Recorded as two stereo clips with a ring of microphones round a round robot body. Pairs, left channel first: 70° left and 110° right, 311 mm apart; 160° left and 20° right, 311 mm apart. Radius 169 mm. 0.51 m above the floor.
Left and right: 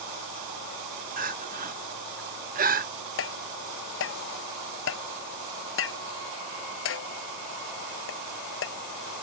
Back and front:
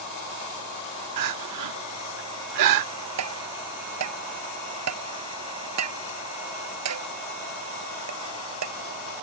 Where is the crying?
50° right.